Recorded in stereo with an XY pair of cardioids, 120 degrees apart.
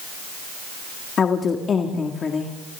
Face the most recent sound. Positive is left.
turn(degrees=40)